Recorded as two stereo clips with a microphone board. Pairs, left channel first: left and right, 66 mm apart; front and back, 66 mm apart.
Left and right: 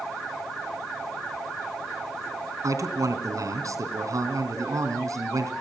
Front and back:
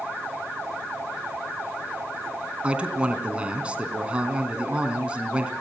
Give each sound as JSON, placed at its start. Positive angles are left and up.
{"t": 2.6, "sound": "a man speaking", "azimuth_deg": -110, "distance_m": 3.5}